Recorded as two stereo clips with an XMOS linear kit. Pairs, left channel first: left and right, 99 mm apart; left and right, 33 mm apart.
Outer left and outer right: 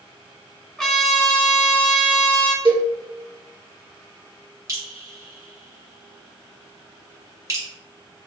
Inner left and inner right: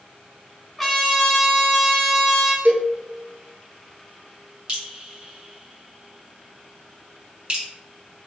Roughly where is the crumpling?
I don't hear crumpling.